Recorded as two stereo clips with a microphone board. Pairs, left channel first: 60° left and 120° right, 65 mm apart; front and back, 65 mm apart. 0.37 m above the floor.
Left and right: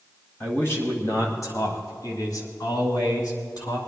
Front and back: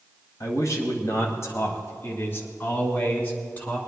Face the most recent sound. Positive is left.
turn(degrees=65)